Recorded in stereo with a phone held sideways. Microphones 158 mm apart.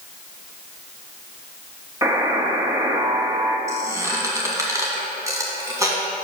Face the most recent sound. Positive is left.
turn(degrees=-20)  # may be behind; listen again after turning